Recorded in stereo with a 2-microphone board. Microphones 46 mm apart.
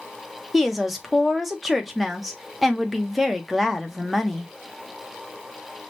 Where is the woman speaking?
Centre (ahead or behind), 0.8 m.